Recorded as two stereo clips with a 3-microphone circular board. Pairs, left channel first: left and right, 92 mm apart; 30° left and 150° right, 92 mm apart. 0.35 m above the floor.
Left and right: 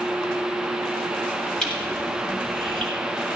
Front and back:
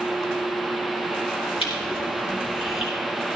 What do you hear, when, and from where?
1.6 s crushing: 5° left, 6.5 m